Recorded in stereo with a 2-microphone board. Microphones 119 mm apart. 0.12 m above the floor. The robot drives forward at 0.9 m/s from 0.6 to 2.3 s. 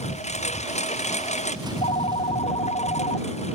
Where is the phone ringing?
75° left (ahead or behind); by 3.5 s 70° left (ahead or behind).